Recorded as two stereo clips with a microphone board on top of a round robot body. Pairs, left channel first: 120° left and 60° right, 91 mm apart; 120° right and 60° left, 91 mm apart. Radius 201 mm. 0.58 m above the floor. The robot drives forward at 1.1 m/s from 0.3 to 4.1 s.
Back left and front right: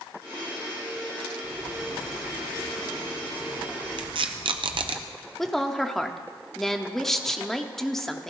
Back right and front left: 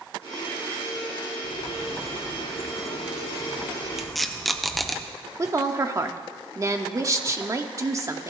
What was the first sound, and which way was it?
A bird, 130° left.